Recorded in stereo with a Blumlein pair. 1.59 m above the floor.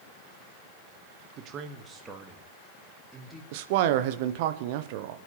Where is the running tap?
No running tap in this recording.